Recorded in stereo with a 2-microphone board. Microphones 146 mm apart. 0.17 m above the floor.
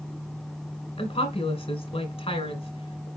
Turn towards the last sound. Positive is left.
turn(degrees=40)  # may be behind; listen again after turning